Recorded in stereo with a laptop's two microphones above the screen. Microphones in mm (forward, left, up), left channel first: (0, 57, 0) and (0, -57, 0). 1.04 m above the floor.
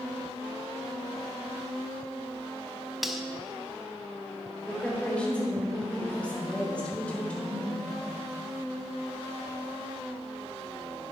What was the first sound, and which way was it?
Cutlery clinking, centre (ahead or behind).